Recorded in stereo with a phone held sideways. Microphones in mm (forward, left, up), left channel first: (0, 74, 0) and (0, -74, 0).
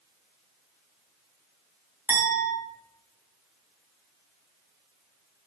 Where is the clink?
10° right (ahead or behind), 0.6 m.